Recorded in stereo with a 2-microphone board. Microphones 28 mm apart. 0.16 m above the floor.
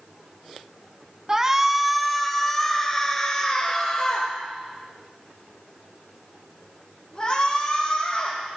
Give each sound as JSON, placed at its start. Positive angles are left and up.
{"t": 1.3, "sound": "a shout", "side_deg": -25, "distance_m": 1.1}